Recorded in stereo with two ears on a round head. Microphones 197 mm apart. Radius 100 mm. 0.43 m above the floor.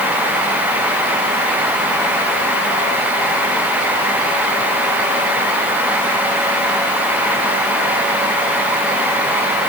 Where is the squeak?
No squeak in this recording.